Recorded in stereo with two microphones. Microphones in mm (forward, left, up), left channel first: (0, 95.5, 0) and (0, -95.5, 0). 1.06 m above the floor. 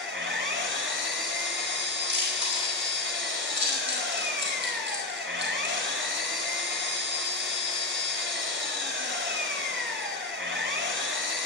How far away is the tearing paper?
I don't hear tearing paper.